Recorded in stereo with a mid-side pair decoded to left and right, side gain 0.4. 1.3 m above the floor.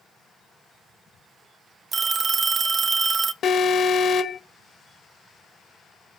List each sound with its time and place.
1.9 s a phone ringing: 55° right, 0.6 m
3.4 s an alarm: 65° left, 1.2 m